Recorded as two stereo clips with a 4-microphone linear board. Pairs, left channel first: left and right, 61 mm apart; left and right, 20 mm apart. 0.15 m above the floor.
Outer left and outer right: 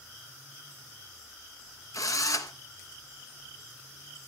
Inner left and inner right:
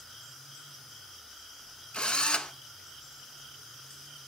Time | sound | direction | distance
1.9 | a drill | 65° left (ahead or behind) | 1.4 m